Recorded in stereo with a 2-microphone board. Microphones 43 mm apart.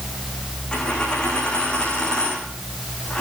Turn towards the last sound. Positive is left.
turn(degrees=20)  # may be behind; listen again after turning